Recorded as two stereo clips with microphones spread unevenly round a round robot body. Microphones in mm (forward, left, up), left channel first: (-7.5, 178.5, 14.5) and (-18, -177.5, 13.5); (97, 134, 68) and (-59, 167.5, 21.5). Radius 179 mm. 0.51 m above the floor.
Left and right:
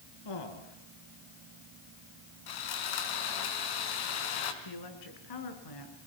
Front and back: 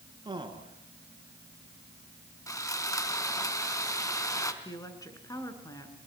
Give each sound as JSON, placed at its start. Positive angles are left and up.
{"t": 0.2, "sound": "a man speaking", "azimuth_deg": 110, "distance_m": 6.0}
{"t": 2.5, "sound": "sawing", "azimuth_deg": 60, "distance_m": 3.5}
{"t": 4.6, "sound": "a woman speaking", "azimuth_deg": 55, "distance_m": 6.0}